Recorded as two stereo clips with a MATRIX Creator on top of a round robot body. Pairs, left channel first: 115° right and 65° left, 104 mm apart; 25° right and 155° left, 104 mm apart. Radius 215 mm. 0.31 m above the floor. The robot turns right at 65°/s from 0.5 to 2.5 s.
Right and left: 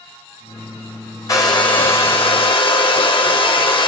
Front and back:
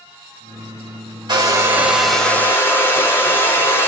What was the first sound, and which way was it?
A hair dryer, 165° right.